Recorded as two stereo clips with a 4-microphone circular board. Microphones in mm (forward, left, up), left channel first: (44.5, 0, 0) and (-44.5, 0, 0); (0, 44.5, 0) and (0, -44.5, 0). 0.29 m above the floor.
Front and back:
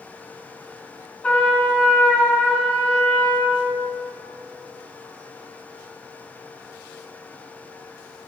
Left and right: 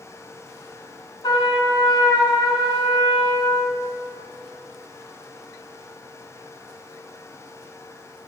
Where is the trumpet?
75° left, 2 m.